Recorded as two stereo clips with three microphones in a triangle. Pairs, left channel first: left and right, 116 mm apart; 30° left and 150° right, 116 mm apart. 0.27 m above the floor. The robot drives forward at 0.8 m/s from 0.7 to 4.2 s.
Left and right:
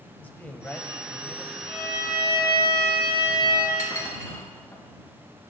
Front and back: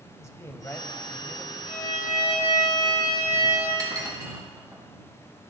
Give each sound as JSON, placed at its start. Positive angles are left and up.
{"t": 0.2, "sound": "a man speaking", "azimuth_deg": 40, "distance_m": 1.0}
{"t": 1.7, "sound": "a violin", "azimuth_deg": 35, "distance_m": 5.0}
{"t": 3.8, "sound": "dishes clattering", "azimuth_deg": 155, "distance_m": 3.0}